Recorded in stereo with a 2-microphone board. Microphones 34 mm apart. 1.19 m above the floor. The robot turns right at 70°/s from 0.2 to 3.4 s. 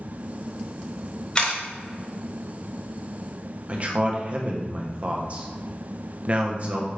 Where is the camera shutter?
25° left (ahead or behind), 1.1 m; by 1.6 s 35° left (ahead or behind), 1.1 m.